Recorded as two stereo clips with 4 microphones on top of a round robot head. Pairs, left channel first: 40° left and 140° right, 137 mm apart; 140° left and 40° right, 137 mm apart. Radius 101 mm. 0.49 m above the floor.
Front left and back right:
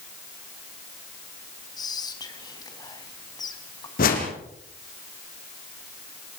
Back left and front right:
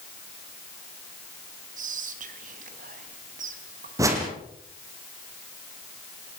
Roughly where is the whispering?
Ahead.